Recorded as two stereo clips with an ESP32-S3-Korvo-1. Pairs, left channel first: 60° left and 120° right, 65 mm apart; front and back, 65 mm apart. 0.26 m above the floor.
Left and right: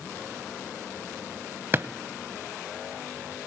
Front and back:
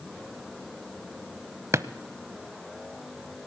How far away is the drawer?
About 0.5 m.